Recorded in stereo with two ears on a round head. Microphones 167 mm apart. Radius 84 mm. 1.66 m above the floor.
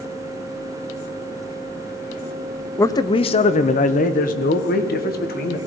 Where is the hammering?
I don't hear hammering.